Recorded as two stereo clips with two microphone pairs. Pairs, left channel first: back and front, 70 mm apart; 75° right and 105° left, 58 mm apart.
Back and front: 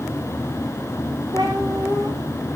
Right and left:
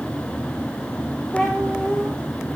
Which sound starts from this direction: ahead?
A cat meowing, at 1.3 s.